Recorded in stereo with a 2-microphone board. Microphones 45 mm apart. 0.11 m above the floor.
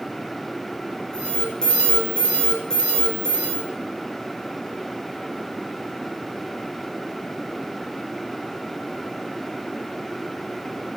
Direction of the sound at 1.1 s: 20° left (ahead or behind).